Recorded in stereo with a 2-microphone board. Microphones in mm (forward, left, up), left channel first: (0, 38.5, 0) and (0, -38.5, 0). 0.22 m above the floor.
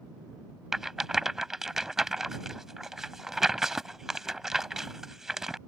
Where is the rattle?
5° right (ahead or behind).